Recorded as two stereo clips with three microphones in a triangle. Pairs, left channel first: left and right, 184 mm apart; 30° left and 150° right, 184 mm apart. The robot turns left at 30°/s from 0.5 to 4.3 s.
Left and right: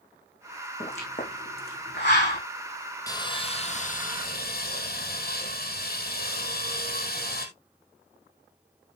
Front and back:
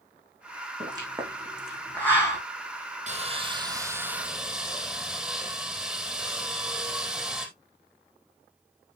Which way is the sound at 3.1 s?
160° left.